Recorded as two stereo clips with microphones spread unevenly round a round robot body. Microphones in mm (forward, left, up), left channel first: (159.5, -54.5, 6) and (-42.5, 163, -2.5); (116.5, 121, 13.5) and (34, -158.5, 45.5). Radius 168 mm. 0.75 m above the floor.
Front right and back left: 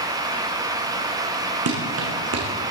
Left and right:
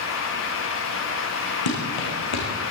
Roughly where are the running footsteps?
Left.